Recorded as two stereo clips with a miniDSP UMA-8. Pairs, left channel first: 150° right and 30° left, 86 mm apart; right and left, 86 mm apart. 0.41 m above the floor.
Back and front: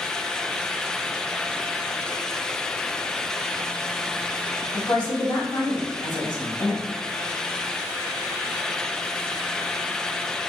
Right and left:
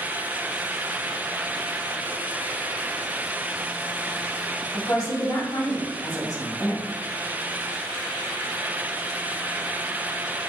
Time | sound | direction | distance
4.7 | a woman speaking | 125° right | 2.5 m